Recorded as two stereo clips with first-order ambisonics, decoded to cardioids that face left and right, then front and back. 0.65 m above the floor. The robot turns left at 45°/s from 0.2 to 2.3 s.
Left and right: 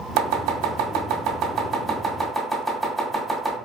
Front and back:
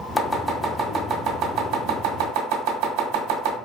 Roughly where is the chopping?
Right.